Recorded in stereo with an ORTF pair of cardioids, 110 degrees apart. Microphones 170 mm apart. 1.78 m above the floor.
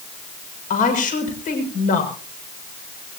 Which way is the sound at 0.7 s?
50° left.